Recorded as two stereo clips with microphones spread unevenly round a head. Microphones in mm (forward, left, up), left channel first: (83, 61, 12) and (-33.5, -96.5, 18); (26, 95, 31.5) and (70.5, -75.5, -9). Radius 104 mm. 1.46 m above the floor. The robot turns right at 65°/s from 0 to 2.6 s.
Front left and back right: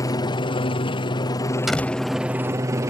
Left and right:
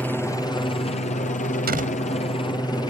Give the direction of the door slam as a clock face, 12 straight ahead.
1 o'clock.